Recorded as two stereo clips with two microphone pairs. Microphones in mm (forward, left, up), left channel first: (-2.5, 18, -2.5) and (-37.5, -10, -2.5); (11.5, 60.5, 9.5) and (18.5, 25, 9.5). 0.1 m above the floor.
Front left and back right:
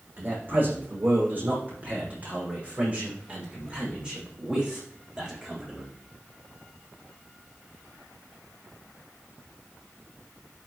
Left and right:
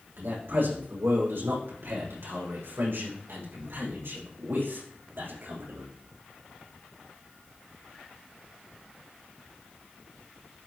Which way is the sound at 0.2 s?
95° right.